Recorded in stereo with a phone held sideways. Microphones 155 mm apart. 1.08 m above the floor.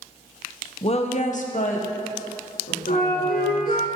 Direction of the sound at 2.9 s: 80° left.